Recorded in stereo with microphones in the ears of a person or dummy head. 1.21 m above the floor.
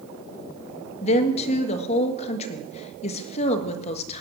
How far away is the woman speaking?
About 1.4 m.